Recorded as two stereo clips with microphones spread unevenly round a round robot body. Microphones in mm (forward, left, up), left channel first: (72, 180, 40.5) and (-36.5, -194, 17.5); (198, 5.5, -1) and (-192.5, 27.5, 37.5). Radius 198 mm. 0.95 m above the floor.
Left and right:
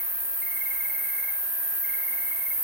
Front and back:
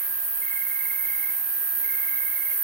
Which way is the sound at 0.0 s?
155° right.